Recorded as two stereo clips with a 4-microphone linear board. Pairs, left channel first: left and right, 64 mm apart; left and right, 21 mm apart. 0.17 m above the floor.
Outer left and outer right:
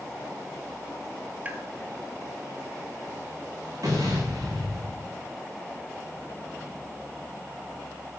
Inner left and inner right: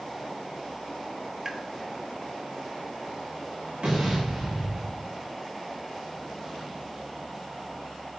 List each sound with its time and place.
1.4 s tapping: 25° right (ahead or behind), 0.8 m
3.8 s an explosion: 60° right (ahead or behind), 5 m